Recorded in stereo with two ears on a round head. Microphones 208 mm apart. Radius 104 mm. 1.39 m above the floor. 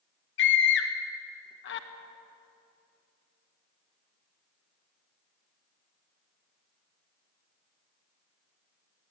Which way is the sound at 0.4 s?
50° left (ahead or behind).